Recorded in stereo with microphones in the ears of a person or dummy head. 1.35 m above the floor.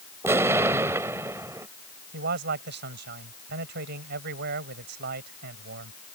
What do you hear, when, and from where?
0.2 s an explosion: 15° right (ahead or behind)
2.1 s a man speaking: 55° right (ahead or behind)